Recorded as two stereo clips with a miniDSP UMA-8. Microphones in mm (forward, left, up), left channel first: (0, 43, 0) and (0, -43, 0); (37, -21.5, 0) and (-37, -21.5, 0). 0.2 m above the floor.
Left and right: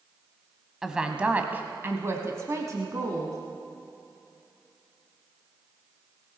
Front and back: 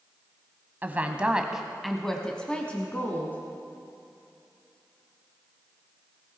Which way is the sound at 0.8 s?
165° right.